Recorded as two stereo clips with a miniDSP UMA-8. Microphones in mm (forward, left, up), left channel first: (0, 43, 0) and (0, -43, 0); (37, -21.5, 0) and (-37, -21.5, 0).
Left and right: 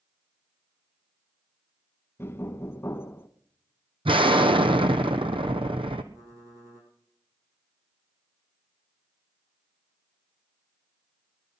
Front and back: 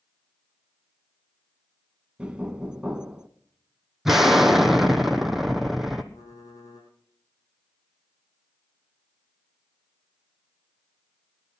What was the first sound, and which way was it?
Knocking, 120° left.